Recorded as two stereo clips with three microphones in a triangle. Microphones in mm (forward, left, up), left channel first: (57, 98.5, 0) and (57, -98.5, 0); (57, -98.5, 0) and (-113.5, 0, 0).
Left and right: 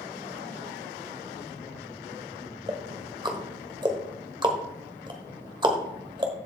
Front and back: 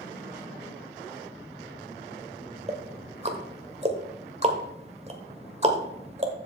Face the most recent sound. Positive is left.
turn(degrees=-155)